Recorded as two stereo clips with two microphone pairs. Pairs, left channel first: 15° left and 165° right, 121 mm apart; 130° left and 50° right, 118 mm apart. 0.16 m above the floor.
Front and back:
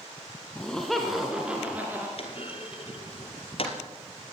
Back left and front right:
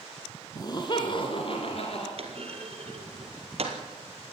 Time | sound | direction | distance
0.6 | laughter | 90° left | 2.0 m
2.2 | a clunk | 20° right | 3 m